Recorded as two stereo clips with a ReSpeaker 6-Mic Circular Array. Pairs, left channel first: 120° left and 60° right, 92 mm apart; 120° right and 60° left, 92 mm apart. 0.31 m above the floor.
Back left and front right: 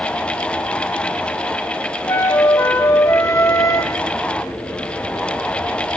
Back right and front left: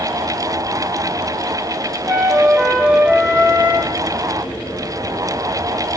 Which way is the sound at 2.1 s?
125° left.